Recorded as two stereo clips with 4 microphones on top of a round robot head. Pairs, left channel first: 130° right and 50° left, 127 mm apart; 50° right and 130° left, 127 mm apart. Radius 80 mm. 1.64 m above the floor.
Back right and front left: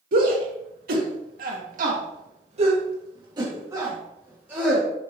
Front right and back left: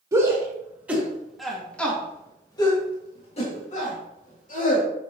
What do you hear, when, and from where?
0.1 s a shout: 60° left, 3 m; by 4.8 s 30° right, 3.5 m